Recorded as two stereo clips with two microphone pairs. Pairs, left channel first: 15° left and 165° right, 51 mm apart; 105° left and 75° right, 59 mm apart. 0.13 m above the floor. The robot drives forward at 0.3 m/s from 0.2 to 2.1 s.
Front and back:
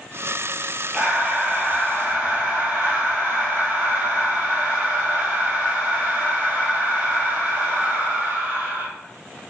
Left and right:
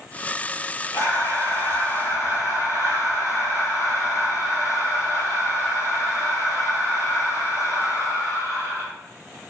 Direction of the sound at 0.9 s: 125° left.